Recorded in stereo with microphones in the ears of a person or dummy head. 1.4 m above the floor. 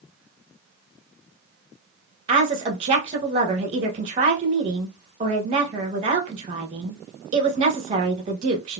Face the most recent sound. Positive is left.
turn(degrees=-30)  # may be behind; listen again after turning